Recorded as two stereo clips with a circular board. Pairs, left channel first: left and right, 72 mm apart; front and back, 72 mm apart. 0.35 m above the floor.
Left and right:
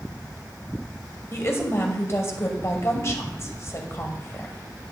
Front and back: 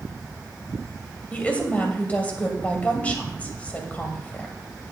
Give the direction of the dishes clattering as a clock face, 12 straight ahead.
No dishes clattering in this recording.